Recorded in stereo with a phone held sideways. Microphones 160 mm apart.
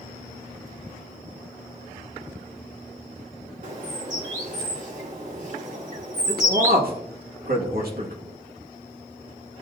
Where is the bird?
55° right (ahead or behind), 1.9 m.